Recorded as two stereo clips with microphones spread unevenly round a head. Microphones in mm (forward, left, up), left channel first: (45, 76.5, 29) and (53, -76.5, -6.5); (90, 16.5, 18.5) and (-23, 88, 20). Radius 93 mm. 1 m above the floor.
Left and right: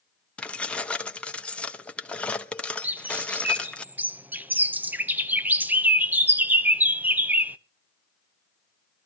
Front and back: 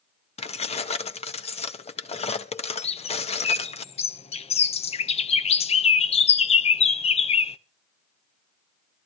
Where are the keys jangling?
10° left, 1.0 m.